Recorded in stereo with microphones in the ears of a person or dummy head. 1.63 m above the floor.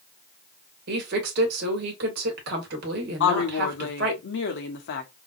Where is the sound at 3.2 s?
60° left (ahead or behind), 1.1 m.